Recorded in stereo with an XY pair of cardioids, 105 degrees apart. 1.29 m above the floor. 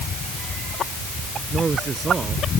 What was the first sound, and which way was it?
A man speaking, 35° right.